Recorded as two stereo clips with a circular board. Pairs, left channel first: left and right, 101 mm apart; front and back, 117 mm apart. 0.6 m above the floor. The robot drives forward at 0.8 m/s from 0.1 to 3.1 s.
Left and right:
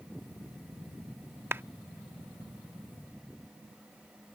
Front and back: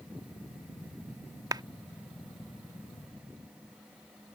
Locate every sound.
1.5 s a clap: 145° right; by 1.6 s 150° right